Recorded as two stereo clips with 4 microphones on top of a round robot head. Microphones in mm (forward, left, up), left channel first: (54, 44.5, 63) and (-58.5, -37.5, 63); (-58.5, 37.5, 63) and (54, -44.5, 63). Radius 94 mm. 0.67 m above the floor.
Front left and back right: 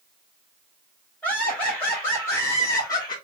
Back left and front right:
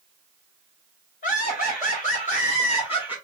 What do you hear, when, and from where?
1.2 s laughter: 115° left, 3.5 m; by 3.2 s 90° left, 1.5 m